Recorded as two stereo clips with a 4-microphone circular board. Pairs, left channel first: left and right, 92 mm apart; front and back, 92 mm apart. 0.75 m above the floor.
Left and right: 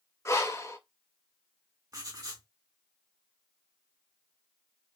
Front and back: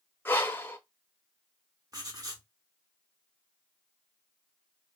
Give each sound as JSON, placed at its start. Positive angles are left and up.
{"t": 0.2, "sound": "breathing", "azimuth_deg": 55, "distance_m": 0.6}
{"t": 1.9, "sound": "writing", "azimuth_deg": -135, "distance_m": 1.0}